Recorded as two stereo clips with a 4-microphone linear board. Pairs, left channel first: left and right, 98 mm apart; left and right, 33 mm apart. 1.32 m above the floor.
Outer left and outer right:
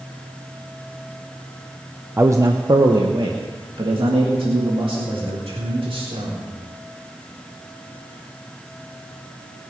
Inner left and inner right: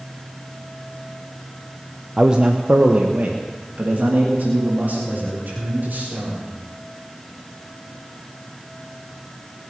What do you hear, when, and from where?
2.2 s a man speaking: 20° right (ahead or behind), 0.6 m; by 6.5 s 65° right (ahead or behind), 4 m